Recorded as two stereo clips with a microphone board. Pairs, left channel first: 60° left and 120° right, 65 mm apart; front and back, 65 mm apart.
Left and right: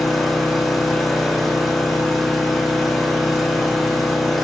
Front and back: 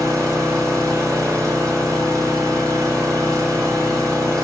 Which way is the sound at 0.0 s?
150° left.